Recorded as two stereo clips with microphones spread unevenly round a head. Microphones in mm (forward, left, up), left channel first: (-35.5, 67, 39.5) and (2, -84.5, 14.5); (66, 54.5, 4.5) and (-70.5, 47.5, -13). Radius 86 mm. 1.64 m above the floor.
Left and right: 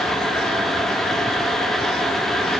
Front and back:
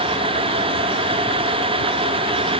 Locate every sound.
Only background noise.